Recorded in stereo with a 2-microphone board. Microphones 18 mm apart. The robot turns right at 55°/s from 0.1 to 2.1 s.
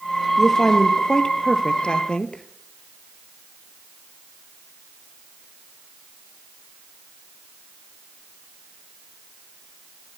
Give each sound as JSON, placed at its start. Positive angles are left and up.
{"t": 0.4, "sound": "a woman speaking", "azimuth_deg": 0, "distance_m": 2.0}